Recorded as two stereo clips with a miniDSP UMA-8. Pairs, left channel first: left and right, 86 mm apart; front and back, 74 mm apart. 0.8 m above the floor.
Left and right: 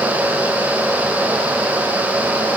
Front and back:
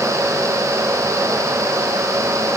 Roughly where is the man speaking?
No man speaking in this recording.